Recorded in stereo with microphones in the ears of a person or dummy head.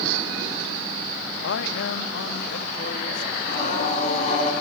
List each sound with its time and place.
1.4 s a man speaking: 65° left (ahead or behind), 1.6 m; by 3.3 s 55° left (ahead or behind), 2.5 m
3.4 s singing: 50° left (ahead or behind), 8 m